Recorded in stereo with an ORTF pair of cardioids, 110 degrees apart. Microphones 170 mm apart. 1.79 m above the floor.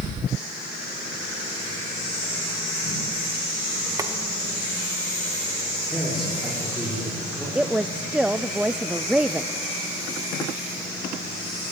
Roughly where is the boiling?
Ahead.